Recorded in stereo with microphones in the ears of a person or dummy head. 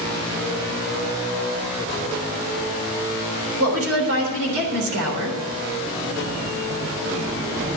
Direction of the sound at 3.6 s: 85° right.